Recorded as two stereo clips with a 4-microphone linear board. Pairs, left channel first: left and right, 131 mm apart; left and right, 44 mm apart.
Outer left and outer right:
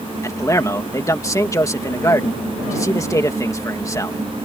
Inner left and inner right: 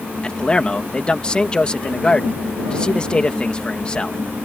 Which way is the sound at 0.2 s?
25° left (ahead or behind).